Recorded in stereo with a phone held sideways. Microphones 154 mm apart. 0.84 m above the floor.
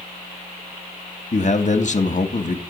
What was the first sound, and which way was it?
A man speaking, 55° left (ahead or behind).